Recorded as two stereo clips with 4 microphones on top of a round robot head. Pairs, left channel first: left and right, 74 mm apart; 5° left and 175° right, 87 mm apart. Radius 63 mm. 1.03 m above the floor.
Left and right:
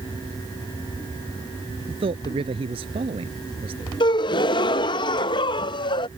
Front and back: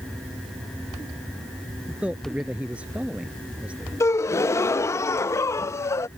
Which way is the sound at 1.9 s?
95° right.